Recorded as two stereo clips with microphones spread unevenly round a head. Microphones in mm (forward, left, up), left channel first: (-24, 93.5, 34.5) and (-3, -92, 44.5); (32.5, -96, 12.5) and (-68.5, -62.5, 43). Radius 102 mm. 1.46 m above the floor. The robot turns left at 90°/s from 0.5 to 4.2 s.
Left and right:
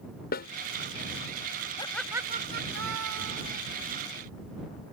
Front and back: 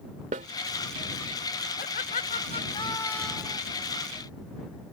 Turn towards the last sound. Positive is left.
turn(degrees=170)